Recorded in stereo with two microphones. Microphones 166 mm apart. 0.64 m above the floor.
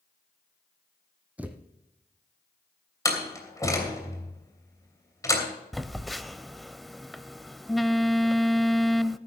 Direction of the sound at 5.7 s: Centre (ahead or behind).